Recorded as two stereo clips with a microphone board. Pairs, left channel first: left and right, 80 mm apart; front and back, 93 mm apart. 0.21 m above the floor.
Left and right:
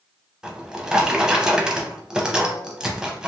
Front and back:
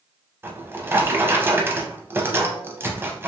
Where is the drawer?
160° right, 0.5 m.